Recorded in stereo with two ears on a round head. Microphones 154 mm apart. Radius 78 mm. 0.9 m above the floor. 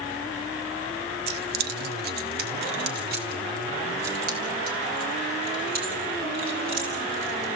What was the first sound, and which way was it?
Keys jangling, 60° right (ahead or behind).